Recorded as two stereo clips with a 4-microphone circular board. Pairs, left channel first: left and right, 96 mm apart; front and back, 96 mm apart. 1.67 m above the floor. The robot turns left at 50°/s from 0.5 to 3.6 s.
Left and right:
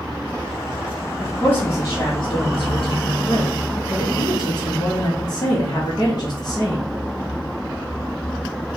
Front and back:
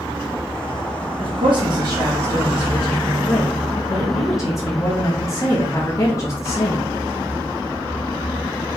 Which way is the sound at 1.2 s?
170° left.